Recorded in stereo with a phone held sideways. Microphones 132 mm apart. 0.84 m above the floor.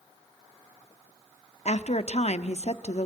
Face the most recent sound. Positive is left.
turn(degrees=60)  # may be behind; listen again after turning